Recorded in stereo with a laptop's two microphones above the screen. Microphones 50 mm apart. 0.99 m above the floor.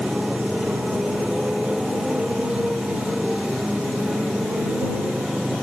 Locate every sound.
0.0 s a motorcycle: 15° right (ahead or behind)